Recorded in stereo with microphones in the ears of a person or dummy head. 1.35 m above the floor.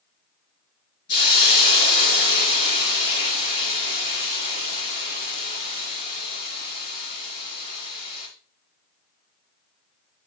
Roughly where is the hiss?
Left.